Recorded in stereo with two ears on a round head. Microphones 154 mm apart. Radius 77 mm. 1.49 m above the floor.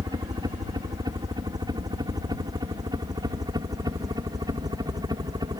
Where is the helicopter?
25° right (ahead or behind).